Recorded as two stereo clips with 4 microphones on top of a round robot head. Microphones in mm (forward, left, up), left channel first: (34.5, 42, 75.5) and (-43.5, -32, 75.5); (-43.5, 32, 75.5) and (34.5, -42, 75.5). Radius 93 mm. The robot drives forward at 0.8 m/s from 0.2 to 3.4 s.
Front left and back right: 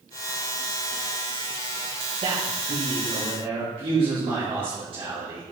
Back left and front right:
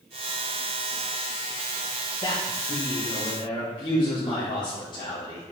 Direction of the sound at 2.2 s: 175° right.